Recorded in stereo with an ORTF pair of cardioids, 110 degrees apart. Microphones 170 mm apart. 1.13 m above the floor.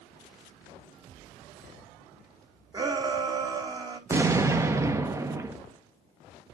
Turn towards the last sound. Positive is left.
turn(degrees=-15)